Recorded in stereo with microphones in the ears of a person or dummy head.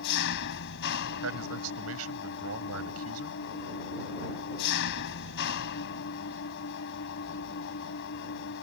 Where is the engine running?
65° left (ahead or behind).